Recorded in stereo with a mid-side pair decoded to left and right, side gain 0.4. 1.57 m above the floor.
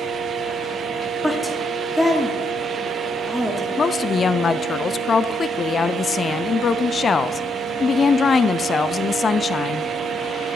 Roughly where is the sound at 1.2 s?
Ahead.